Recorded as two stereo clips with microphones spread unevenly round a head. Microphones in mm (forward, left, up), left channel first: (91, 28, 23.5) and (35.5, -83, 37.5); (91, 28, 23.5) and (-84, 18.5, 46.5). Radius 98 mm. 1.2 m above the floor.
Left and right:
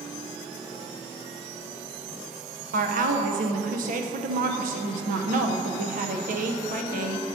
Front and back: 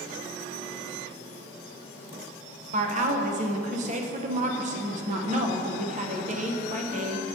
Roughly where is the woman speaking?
Behind right.